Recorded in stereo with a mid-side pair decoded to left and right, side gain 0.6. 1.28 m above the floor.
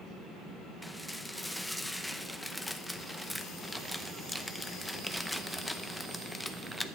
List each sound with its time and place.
0.8 s dishes clattering: 5° left, 0.7 m